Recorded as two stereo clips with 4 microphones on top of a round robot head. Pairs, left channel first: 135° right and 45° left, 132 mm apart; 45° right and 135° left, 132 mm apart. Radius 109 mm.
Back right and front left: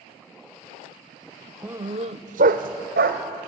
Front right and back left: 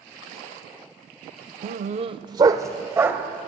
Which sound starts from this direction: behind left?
A dog barking, at 1.6 s.